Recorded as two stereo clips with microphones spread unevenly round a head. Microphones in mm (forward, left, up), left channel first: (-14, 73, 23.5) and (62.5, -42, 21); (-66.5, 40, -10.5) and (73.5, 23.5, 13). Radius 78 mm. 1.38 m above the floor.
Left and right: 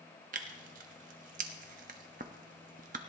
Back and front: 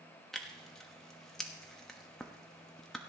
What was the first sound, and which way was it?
Tearing paper, 95° right.